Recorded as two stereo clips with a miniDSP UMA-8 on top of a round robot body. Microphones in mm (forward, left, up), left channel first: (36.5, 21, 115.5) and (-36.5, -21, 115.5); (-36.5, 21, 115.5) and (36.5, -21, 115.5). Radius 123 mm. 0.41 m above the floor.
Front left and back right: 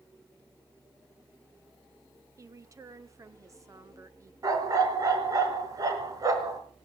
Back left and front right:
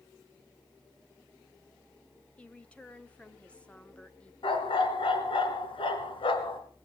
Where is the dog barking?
165° left, 3 m.